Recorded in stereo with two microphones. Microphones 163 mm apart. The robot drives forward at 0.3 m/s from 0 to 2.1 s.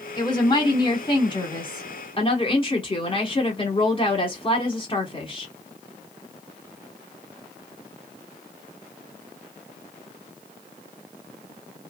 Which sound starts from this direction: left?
A woman speaking, at 0.2 s.